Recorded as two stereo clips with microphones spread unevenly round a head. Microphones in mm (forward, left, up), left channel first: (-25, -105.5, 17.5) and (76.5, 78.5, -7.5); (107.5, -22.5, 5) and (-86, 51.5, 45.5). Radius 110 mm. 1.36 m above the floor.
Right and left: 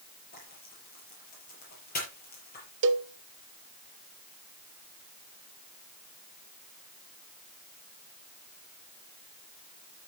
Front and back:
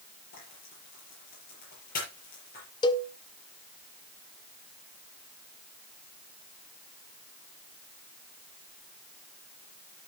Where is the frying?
75° right, 6 m.